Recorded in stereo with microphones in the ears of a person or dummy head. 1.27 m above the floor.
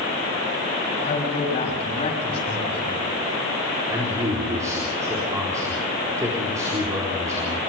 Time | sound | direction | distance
1.0 | a man speaking | 40° left (ahead or behind) | 8 m
3.9 | a man speaking | 20° right (ahead or behind) | 4 m